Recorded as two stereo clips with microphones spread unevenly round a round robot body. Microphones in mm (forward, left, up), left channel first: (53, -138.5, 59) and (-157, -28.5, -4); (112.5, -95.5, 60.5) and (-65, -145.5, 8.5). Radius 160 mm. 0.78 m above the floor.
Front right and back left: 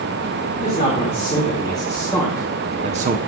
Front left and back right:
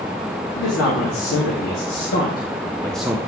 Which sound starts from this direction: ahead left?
A man speaking, at 0.6 s.